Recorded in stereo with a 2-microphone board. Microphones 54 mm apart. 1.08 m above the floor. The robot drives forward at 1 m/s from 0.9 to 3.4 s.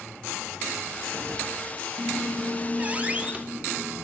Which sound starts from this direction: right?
A squeak, at 2.0 s.